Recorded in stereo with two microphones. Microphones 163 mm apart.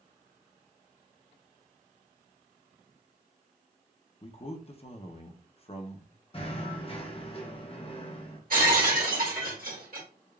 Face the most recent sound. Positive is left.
turn(degrees=-60)  # may be behind; listen again after turning